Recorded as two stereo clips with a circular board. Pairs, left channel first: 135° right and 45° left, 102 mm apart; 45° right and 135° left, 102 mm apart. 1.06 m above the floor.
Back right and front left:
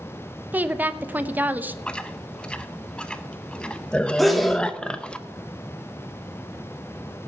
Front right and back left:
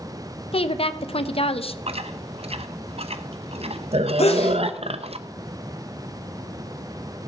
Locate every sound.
0.5 s a woman speaking: 25° right, 0.8 m
1.9 s chewing: 145° left, 0.7 m
4.2 s a sneeze: 45° right, 1.9 m